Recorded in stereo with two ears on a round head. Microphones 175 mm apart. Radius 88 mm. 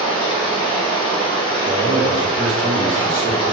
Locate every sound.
0.0 s running water: 25° left (ahead or behind), 4 m
1.6 s a man speaking: 20° right (ahead or behind), 1.9 m